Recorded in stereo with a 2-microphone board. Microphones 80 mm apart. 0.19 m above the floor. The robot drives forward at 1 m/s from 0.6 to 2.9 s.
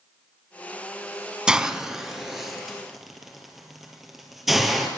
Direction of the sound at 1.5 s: 10° right (ahead or behind).